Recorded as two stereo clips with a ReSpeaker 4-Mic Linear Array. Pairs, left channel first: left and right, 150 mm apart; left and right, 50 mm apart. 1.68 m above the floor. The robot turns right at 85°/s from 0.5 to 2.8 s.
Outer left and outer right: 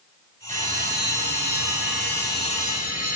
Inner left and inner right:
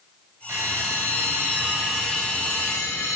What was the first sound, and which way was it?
A bell, 125° right.